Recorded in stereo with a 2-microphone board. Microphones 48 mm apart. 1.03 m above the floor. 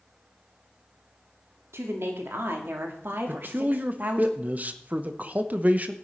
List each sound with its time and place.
1.7 s a woman speaking: 65° right (ahead or behind), 2.5 m; by 4.3 s 40° right (ahead or behind), 1.9 m
3.3 s a man speaking: 35° right (ahead or behind), 1.0 m